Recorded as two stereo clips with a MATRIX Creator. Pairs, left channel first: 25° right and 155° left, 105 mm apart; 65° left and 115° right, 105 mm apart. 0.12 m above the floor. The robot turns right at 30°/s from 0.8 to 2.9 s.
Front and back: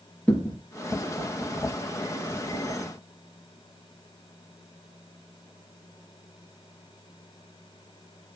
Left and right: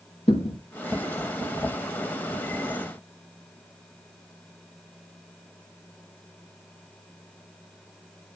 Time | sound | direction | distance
0.3 | a thud | 55° left | 4 m